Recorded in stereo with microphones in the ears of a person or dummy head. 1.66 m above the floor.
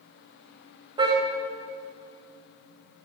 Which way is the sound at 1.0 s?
30° right (ahead or behind).